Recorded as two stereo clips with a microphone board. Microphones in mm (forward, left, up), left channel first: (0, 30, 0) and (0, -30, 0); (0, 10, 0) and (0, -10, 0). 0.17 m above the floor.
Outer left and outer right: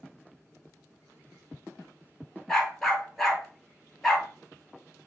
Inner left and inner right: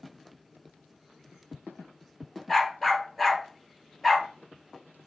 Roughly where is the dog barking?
Centre.